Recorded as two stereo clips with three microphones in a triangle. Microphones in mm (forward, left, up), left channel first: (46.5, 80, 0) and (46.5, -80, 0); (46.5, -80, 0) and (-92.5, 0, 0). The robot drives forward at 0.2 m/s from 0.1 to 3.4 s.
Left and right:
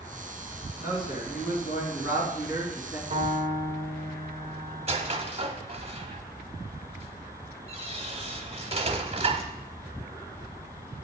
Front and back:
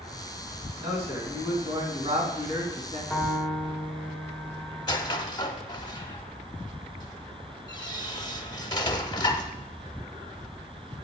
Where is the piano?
120° right, 1.4 m; by 5.2 s 125° right, 1.4 m.